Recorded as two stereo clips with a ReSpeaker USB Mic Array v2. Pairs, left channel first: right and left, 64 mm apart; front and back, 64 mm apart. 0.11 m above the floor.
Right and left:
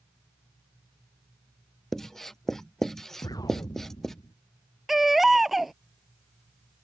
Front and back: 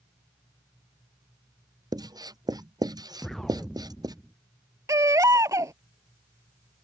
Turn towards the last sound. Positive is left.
turn(degrees=175)